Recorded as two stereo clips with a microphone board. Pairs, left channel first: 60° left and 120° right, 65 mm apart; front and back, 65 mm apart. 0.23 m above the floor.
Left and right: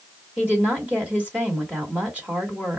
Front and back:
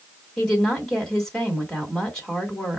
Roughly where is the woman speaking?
Right.